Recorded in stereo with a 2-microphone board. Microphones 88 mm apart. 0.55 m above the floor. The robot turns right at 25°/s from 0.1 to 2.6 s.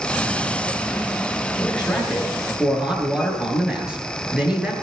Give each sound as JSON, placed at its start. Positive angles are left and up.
{"t": 1.6, "sound": "a man speaking", "side_deg": 15, "distance_m": 9.0}